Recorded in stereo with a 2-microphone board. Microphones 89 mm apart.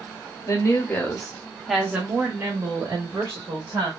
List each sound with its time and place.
0.5 s a woman speaking: 40° left (ahead or behind), 0.9 m; by 3.9 s 55° right (ahead or behind), 1.4 m